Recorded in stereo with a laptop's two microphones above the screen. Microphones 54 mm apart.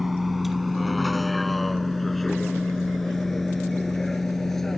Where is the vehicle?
5° right (ahead or behind); by 4.8 s 5° left (ahead or behind).